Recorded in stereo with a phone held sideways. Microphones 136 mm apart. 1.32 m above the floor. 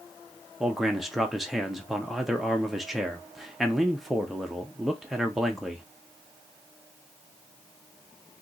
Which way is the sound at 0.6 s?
Centre (ahead or behind).